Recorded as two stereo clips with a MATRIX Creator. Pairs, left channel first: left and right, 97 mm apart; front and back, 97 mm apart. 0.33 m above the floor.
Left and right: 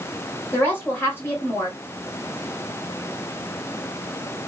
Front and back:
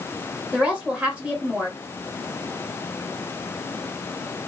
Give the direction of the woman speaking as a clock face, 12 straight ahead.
8 o'clock.